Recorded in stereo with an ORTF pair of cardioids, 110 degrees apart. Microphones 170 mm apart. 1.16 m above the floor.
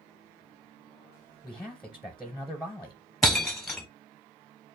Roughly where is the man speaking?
Ahead.